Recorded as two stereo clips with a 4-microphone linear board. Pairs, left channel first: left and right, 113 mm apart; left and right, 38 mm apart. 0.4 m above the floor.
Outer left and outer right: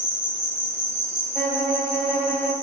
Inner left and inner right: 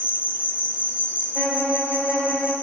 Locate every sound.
0.0 s an insect: 65° left (ahead or behind), 1.7 m
1.4 s a violin: 5° left (ahead or behind), 1.2 m